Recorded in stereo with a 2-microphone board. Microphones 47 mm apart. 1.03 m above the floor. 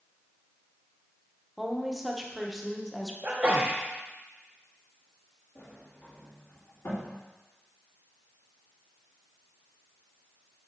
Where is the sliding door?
60° left (ahead or behind), 2 m.